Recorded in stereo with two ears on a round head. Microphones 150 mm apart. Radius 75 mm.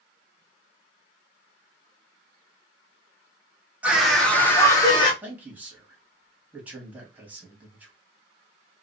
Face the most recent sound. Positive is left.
turn(degrees=-10)  # may be behind; listen again after turning